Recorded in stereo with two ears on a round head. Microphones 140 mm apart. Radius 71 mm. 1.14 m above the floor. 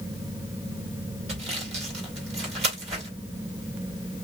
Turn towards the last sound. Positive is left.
turn(degrees=-45)  # may be behind; listen again after turning